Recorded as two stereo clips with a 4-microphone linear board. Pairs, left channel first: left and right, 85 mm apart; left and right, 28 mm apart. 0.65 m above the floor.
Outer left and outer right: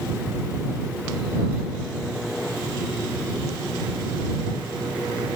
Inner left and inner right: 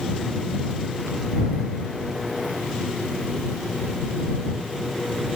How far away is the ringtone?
I don't hear a ringtone.